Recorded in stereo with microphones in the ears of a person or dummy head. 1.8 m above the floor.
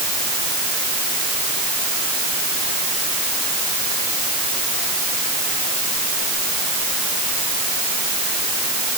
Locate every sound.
Only background noise.